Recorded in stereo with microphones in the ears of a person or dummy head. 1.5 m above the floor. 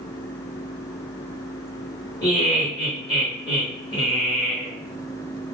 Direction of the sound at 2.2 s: 20° left (ahead or behind).